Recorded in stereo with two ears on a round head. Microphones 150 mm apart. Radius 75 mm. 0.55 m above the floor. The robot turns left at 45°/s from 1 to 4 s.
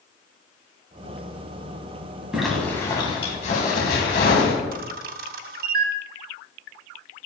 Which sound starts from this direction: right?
A camera shutter, at 4.7 s.